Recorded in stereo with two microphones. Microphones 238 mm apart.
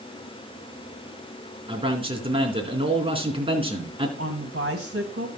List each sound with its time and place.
1.7 s a man speaking: 25° right (ahead or behind), 4 m
4.2 s a woman speaking: 65° right (ahead or behind), 2.5 m